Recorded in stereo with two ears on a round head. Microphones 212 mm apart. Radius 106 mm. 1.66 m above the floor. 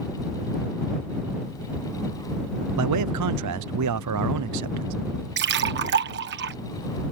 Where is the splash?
50° right (ahead or behind).